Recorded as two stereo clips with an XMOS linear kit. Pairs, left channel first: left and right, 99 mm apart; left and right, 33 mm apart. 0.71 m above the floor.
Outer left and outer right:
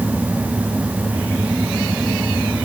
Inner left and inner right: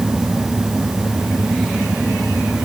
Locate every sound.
Only background noise.